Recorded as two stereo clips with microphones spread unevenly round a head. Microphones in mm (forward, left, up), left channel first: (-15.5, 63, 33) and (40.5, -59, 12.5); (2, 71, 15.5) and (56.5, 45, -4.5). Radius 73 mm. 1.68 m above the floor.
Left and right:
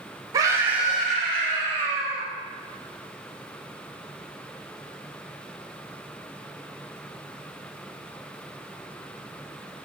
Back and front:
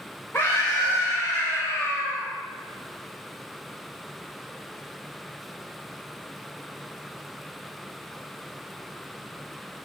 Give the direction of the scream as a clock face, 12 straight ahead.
4 o'clock.